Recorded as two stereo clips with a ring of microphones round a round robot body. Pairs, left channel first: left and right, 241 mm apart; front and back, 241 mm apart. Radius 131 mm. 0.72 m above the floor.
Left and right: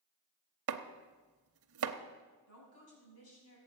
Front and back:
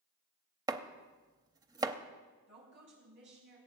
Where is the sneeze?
No sneeze in this recording.